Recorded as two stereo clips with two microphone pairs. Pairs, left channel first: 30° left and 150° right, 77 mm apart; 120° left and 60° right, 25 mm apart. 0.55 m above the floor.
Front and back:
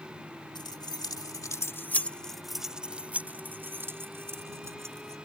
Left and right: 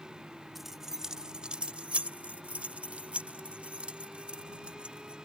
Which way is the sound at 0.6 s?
20° left.